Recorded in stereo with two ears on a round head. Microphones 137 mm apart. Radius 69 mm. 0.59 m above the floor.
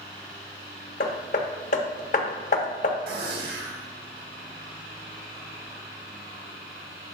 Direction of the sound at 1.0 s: 55° left (ahead or behind).